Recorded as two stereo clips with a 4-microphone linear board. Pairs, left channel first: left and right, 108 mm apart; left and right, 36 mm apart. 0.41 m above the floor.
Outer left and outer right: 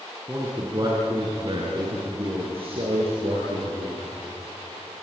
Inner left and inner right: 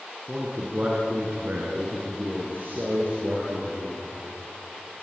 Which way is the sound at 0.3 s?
25° right (ahead or behind).